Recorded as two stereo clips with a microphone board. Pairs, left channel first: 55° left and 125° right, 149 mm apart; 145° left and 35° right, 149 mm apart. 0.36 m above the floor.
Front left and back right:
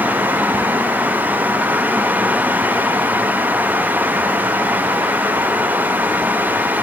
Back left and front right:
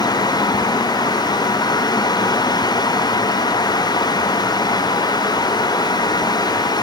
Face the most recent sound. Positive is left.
No sound to turn to.